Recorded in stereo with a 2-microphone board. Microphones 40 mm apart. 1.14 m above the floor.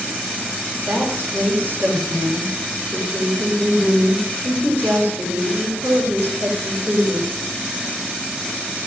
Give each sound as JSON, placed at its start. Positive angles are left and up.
{"t": 0.9, "sound": "a woman speaking", "side_deg": -50, "distance_m": 4.0}